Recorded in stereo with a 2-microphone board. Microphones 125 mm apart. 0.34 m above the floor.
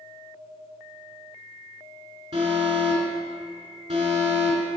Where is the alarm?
60° right (ahead or behind), 3 m.